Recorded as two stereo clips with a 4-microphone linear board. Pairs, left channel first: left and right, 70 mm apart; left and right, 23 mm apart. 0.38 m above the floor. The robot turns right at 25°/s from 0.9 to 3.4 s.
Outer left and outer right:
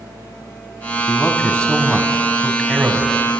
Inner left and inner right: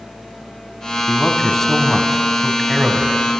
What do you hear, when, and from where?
1.1 s a man speaking: 150° left, 2.5 m; by 3.2 s 155° right, 2.5 m